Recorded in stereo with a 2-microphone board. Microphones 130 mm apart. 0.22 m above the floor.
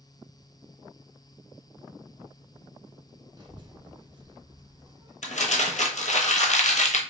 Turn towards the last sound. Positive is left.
turn(degrees=70)  # may be behind; listen again after turning